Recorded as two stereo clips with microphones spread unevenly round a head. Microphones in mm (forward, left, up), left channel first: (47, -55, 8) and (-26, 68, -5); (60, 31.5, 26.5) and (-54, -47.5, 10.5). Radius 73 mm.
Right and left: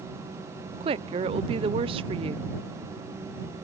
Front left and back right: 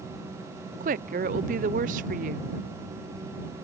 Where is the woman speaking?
175° left.